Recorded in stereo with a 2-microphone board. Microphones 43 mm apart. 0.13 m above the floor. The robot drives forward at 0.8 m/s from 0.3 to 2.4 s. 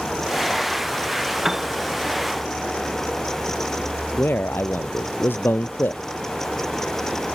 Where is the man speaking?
55° left (ahead or behind).